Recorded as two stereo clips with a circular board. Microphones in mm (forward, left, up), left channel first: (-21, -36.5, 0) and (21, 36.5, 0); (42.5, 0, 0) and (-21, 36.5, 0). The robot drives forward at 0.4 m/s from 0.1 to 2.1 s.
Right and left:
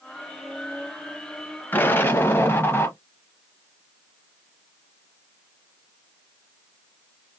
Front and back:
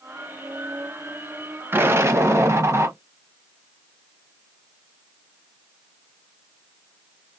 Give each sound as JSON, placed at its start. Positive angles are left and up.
{"t": 1.7, "sound": "an explosion", "azimuth_deg": -175, "distance_m": 0.5}